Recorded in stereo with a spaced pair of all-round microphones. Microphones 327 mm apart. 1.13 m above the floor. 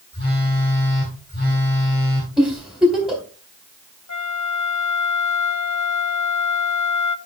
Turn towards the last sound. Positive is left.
turn(degrees=55)  # may be behind; listen again after turning